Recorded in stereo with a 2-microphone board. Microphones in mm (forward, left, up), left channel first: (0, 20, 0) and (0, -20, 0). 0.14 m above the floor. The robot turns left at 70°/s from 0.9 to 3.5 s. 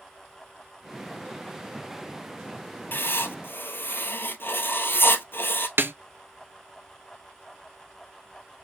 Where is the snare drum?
70° right (ahead or behind), 0.5 m.